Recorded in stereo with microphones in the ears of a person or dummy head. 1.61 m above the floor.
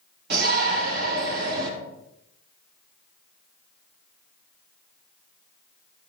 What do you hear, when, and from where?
0.3 s a shout: 60° right (ahead or behind), 3 m